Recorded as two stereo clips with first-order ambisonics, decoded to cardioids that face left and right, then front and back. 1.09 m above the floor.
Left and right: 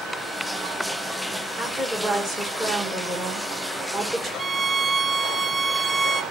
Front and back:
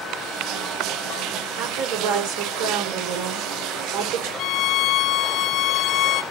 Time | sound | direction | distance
1.6 | a woman speaking | 165° right | 4 m
4.4 | a violin | 15° right | 0.6 m